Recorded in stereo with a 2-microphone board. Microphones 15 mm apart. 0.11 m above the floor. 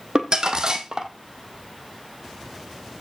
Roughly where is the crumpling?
Right.